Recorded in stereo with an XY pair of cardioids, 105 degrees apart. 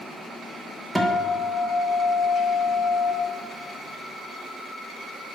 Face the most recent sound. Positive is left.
turn(degrees=-5)